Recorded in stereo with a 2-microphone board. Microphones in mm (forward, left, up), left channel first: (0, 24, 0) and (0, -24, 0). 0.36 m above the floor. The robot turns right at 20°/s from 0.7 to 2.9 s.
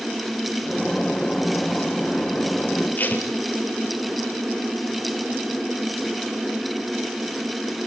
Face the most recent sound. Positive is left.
turn(degrees=40)  # may be behind; listen again after turning